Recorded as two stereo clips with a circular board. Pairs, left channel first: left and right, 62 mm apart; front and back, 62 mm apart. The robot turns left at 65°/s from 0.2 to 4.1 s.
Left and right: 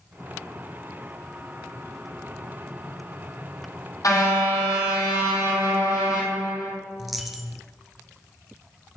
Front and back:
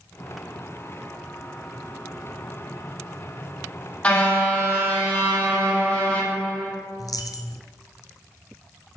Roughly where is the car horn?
Left.